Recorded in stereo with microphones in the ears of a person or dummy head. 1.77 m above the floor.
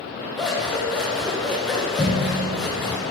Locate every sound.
0.4 s scissors: 5° left (ahead or behind), 1.1 m